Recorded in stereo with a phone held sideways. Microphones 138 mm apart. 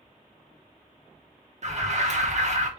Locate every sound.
1.6 s an alarm: 60° right (ahead or behind), 1.0 m